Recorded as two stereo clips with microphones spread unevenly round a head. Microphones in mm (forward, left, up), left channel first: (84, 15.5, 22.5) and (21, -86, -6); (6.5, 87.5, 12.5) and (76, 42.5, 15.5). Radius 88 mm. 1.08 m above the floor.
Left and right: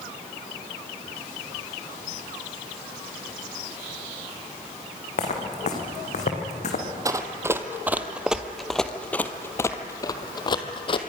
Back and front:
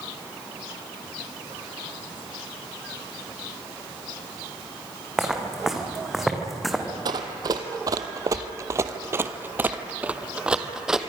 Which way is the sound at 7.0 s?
55° right.